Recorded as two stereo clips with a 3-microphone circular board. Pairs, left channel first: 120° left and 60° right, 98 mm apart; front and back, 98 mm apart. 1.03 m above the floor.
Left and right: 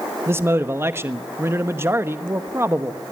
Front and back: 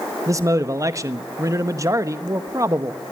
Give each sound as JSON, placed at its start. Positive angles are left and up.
{"t": 0.3, "sound": "a man speaking", "azimuth_deg": -125, "distance_m": 1.1}